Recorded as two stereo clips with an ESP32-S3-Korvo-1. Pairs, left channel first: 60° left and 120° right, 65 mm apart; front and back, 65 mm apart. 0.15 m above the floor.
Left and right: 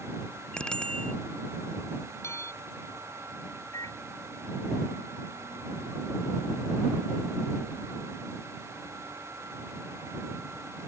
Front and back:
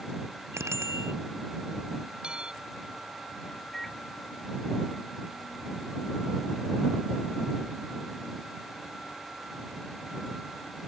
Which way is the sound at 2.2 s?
105° left.